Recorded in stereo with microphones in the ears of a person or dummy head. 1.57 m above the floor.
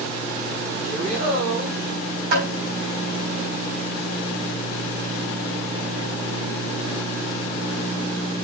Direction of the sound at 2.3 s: 70° right (ahead or behind).